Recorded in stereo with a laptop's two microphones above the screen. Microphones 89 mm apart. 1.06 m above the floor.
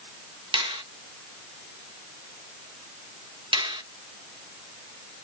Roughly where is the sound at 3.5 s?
Right.